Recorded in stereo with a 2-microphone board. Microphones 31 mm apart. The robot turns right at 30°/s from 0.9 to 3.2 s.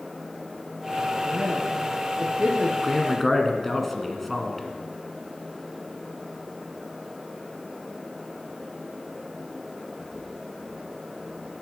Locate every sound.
1.2 s a woman speaking: 60° right (ahead or behind), 2 m; by 2.7 s 35° right (ahead or behind), 2 m
2.8 s a man speaking: 10° left (ahead or behind), 1.7 m; by 4.7 s 5° left (ahead or behind), 1.7 m